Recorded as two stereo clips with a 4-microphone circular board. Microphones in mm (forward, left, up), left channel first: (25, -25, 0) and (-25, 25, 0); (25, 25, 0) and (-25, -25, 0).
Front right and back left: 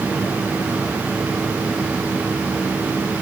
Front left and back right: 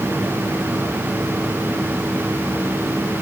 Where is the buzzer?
I don't hear a buzzer.